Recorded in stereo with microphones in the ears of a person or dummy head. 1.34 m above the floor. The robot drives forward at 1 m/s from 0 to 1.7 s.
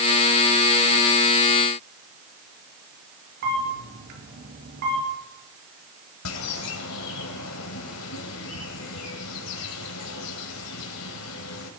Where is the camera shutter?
55° right (ahead or behind), 5.5 m.